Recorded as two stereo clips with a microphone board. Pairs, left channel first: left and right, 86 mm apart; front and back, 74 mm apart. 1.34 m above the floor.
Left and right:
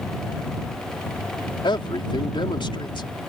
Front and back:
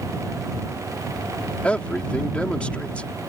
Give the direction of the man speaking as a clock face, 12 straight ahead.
10 o'clock.